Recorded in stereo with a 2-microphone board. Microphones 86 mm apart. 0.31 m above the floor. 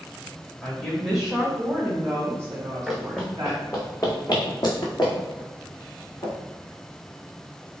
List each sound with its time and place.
0.6 s a woman speaking: 10° left (ahead or behind), 1.3 m; by 3.6 s 45° right (ahead or behind), 1.8 m
2.9 s running footsteps: centre (ahead or behind), 1.1 m; by 6.3 s 65° left (ahead or behind), 3 m